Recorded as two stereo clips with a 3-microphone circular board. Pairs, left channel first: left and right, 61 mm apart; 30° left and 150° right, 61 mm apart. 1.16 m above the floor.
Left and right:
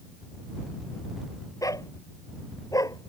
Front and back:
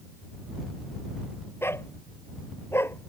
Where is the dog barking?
75° left.